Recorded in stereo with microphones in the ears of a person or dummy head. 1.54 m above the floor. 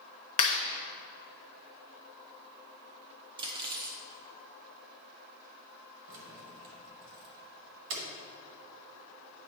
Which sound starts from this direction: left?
A clap, at 0.4 s.